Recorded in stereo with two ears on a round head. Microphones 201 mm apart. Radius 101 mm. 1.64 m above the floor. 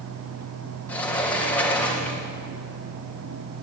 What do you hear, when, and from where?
0.9 s a sliding door: 5° left (ahead or behind), 3 m